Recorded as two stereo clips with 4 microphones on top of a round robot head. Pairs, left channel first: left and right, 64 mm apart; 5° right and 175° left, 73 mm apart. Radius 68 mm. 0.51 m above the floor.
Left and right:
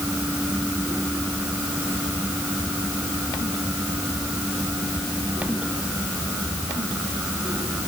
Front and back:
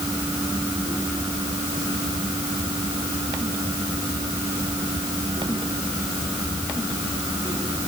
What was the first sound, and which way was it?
Only background noise.